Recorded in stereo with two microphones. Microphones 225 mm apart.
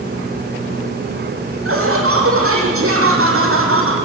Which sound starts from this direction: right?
Laughter, at 1.6 s.